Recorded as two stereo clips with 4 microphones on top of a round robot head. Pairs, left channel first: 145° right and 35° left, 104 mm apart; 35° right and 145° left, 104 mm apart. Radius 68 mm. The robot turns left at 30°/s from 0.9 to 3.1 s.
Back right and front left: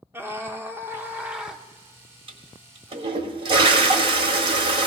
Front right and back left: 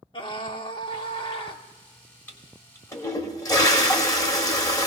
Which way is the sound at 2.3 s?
35° left.